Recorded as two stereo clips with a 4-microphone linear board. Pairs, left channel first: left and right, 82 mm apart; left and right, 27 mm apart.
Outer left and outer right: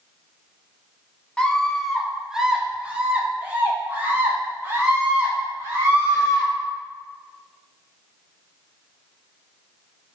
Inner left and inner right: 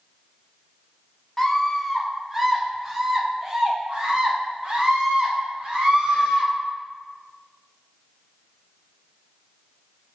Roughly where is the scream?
Centre.